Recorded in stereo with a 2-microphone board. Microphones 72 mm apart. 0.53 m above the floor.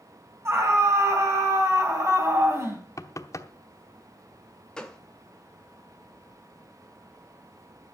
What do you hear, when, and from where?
0.5 s a scream: 40° right (ahead or behind), 4.5 m
3.0 s knocking: 45° left (ahead or behind), 0.9 m
4.8 s a gunshot: 10° left (ahead or behind), 1.5 m